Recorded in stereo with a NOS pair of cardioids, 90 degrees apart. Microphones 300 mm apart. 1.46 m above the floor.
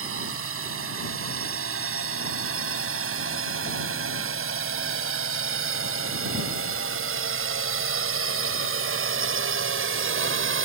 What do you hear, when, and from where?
0.0 s a drone: 45° right